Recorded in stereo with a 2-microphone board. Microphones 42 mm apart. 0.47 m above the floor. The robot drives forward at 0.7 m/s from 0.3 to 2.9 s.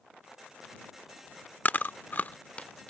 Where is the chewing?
40° left (ahead or behind); by 2.9 s 25° left (ahead or behind).